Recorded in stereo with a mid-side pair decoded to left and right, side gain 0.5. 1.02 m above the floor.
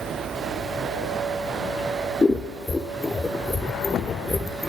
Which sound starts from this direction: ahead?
Scissors, at 2.2 s.